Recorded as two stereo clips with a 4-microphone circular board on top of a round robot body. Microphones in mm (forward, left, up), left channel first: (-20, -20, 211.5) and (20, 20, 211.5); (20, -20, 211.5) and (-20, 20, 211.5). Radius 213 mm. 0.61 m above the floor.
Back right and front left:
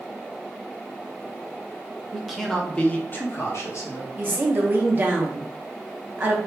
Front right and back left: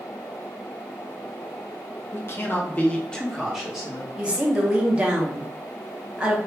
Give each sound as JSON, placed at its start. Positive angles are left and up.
{"t": 2.1, "sound": "a man speaking", "azimuth_deg": -35, "distance_m": 1.1}
{"t": 4.2, "sound": "a woman speaking", "azimuth_deg": 80, "distance_m": 0.9}